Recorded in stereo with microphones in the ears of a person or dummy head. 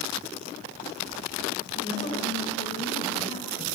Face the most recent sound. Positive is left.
turn(degrees=35)  # may be behind; listen again after turning